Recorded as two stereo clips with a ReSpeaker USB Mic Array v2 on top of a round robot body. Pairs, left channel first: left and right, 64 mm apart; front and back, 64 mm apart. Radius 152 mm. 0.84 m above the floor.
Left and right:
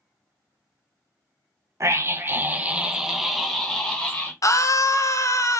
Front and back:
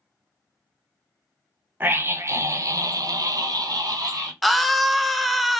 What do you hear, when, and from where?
1.8 s a scream: 125° right, 1.0 m; by 4.3 s 160° left, 1.4 m
4.4 s a scream: 90° left, 0.7 m